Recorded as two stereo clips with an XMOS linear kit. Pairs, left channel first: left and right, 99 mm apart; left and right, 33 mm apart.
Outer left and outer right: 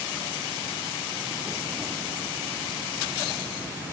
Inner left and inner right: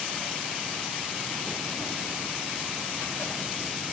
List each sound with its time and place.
Only background noise.